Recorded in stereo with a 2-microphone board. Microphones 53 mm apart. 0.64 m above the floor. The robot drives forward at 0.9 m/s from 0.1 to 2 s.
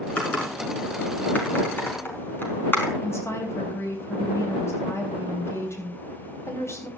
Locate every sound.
0.2 s typing on a keyboard: 30° left (ahead or behind), 5.5 m; by 2.9 s 40° left (ahead or behind), 4.5 m
3.0 s a woman speaking: 55° left (ahead or behind), 3.5 m